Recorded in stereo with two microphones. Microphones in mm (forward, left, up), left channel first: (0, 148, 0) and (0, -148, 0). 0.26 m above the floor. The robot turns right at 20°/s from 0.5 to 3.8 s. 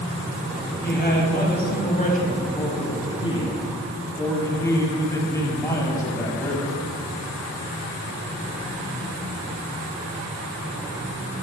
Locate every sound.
0.8 s a man speaking: 105° left, 1.6 m; by 6.9 s 160° left, 1.6 m